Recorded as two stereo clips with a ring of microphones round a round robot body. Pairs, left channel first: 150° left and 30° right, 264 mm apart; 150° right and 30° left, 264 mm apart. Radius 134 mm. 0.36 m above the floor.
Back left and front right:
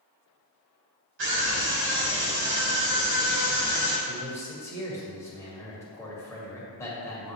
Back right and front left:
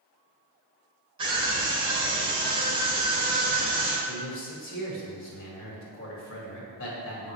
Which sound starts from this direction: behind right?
A man speaking, at 4.1 s.